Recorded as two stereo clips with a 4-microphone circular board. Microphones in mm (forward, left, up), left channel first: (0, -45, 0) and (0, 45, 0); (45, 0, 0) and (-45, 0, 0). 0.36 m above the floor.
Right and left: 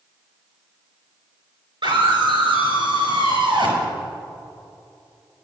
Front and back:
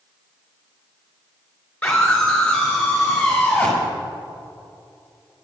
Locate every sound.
1.8 s a scream: 75° left, 4.5 m